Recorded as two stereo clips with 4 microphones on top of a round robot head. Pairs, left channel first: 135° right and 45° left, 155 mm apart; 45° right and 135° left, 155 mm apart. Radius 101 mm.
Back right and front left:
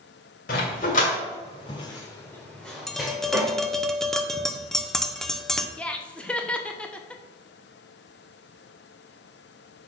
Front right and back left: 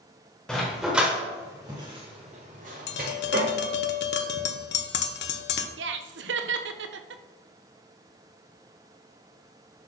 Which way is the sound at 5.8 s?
140° left.